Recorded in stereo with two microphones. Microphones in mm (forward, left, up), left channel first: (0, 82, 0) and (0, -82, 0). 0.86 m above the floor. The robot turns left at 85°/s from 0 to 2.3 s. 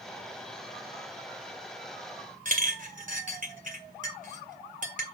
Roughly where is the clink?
Right.